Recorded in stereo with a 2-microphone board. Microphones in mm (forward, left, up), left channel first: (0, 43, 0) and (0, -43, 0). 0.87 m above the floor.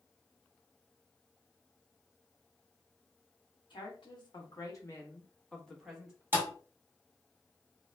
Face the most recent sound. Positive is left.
turn(degrees=-25)  # may be behind; listen again after turning